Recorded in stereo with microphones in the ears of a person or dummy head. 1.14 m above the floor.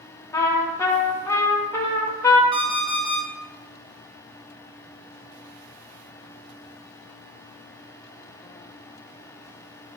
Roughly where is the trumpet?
Centre.